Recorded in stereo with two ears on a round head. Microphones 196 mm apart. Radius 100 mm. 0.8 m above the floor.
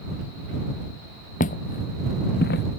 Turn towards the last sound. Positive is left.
turn(degrees=45)  # may be behind; listen again after turning